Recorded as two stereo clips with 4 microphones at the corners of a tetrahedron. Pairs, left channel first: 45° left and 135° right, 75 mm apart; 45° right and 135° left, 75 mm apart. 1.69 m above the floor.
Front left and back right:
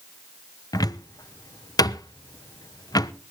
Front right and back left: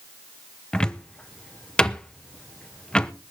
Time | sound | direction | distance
0.7 | a cupboard door | 30° left | 0.9 m